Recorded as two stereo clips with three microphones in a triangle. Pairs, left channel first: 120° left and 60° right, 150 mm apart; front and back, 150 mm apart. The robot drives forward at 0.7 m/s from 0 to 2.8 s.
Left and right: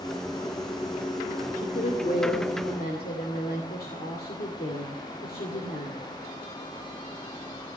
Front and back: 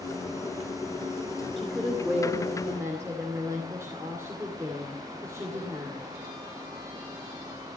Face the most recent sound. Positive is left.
turn(degrees=110)